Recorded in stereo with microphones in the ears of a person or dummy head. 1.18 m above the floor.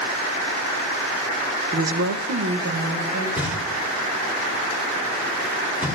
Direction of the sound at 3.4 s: 10° right (ahead or behind).